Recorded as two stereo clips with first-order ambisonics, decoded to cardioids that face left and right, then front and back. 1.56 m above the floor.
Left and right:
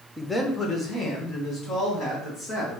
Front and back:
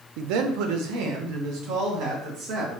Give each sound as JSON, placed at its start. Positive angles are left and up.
{"t": 0.2, "sound": "a man speaking", "azimuth_deg": 180, "distance_m": 0.6}